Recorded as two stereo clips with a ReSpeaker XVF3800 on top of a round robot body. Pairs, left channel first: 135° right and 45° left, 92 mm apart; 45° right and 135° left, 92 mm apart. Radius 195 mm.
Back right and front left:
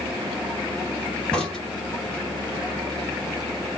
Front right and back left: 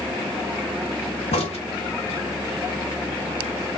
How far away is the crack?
About 1.1 m.